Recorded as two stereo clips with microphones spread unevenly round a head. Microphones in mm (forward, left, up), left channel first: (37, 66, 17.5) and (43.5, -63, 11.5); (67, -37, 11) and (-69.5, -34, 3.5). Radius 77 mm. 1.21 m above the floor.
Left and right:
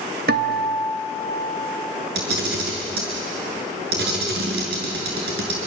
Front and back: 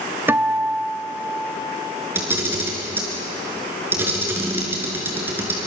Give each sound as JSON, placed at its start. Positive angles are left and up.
{"t": 0.3, "sound": "a guitar", "azimuth_deg": -105, "distance_m": 1.4}
{"t": 2.1, "sound": "a camera shutter", "azimuth_deg": -105, "distance_m": 7.0}